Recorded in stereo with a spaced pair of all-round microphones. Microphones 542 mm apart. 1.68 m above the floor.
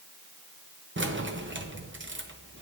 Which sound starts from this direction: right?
Keys jangling, at 1.0 s.